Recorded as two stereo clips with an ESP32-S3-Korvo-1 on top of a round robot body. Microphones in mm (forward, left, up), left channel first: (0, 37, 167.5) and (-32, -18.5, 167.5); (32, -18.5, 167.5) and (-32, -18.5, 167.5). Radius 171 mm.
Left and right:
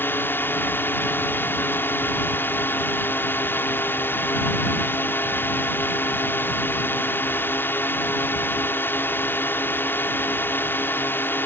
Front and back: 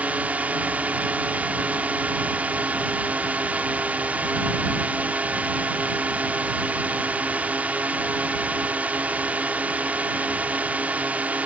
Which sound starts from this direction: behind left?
A drone, at 0.0 s.